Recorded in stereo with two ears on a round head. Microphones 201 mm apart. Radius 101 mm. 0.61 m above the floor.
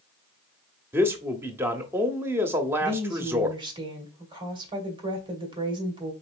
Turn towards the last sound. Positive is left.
turn(degrees=-25)  # may be behind; listen again after turning